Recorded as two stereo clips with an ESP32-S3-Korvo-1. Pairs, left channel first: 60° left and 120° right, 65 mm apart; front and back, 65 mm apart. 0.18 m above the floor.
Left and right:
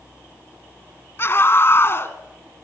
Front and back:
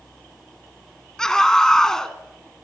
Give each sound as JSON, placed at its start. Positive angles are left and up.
{"t": 1.2, "sound": "a scream", "azimuth_deg": 75, "distance_m": 1.4}